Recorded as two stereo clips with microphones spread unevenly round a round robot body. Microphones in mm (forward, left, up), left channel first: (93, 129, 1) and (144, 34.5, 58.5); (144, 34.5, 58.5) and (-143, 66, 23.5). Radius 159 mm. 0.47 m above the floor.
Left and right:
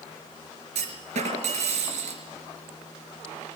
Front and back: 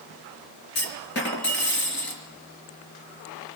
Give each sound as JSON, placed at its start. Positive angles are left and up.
{"t": 0.8, "sound": "a clunk", "azimuth_deg": -60, "distance_m": 4.5}